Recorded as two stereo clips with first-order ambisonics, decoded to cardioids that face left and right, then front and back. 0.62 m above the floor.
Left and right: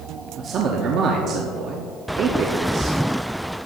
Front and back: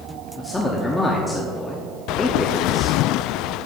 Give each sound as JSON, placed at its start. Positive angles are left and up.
{"t": 0.4, "sound": "a man speaking", "azimuth_deg": -75, "distance_m": 0.9}